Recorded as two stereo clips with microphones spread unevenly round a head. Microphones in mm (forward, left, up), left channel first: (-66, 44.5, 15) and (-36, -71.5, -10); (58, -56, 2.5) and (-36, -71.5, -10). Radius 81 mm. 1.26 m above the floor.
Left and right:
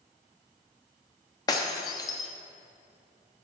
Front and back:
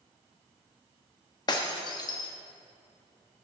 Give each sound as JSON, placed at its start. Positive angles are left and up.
{"t": 1.5, "sound": "breaking glass", "azimuth_deg": 50, "distance_m": 0.9}